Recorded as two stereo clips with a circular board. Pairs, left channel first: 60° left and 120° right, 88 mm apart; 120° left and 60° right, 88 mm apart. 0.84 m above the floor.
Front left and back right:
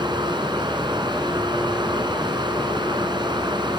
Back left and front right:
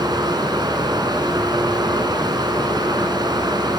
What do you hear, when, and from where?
0.0 s running water: 95° right, 2.5 m